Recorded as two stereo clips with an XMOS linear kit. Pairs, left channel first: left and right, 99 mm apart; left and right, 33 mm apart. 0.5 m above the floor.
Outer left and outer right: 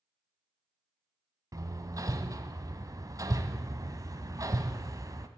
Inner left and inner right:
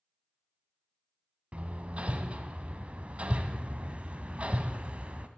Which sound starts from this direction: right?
Hammering, at 1.5 s.